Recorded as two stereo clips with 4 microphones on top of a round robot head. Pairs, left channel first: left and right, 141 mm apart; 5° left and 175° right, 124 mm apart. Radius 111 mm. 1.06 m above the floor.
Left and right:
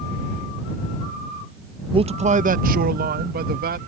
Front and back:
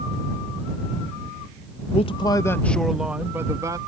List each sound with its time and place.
1.9 s a man speaking: 35° right; by 3.8 s 105° right